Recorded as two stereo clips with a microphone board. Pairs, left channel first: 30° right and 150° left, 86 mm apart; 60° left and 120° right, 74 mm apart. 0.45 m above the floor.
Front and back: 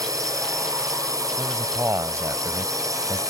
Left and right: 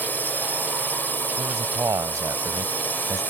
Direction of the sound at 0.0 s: 120° left.